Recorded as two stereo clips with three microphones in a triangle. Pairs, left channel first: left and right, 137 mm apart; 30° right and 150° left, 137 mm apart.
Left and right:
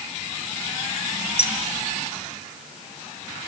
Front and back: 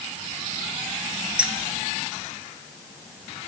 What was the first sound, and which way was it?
Keys jangling, 70° left.